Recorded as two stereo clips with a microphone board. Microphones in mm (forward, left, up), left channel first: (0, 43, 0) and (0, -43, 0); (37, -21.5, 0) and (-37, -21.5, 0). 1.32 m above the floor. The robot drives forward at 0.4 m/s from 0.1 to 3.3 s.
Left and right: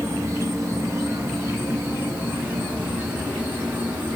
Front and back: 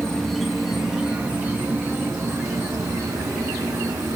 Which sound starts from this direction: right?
An insect, at 0.0 s.